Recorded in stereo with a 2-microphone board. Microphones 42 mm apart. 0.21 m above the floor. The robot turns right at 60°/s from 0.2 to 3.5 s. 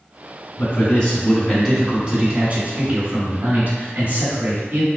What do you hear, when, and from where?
0.6 s a man speaking: 125° left, 1.8 m; by 4.9 s 60° right, 1.8 m